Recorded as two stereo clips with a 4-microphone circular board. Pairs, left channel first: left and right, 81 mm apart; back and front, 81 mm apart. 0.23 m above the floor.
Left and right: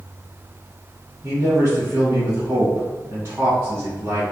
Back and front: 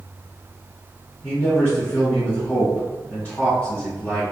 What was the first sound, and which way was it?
A man speaking, 120° right.